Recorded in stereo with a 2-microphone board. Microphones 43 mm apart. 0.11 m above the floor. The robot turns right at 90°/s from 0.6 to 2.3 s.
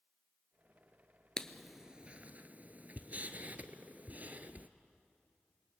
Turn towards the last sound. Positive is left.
turn(degrees=-40)  # may be behind; listen again after turning